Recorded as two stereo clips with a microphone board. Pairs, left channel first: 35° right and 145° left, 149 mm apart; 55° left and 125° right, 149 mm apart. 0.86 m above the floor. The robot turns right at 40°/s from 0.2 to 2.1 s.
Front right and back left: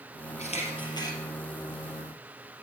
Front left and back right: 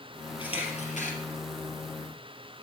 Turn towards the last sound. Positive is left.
turn(degrees=70)